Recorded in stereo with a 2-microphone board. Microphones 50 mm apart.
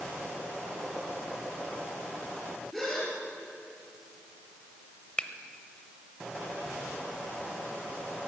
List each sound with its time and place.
2.7 s a gasp: 5° left (ahead or behind), 4 m
5.2 s a finger snap: 20° left (ahead or behind), 0.9 m